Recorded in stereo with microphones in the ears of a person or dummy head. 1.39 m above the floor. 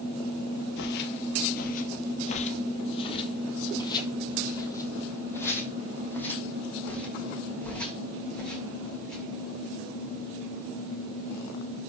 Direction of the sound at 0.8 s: 50° left (ahead or behind).